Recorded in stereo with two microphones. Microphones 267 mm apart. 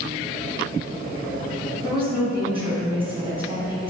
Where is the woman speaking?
20° right (ahead or behind), 1.6 m.